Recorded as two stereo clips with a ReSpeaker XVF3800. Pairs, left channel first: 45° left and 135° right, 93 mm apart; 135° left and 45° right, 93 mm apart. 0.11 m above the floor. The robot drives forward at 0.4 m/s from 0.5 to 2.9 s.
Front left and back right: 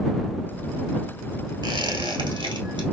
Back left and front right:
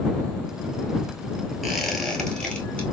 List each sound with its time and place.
1.6 s a squeak: 135° right, 1.0 m; by 2.8 s 150° right, 1.3 m